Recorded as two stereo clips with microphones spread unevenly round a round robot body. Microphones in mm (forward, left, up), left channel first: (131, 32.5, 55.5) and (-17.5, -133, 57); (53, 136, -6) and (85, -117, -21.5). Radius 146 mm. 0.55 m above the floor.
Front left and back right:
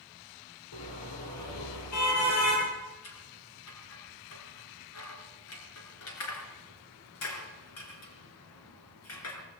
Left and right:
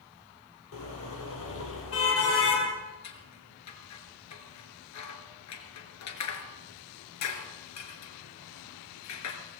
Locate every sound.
0.7 s a car horn: 65° left, 6 m; by 2.7 s 60° left, 7.5 m
3.0 s scissors: 85° left, 4 m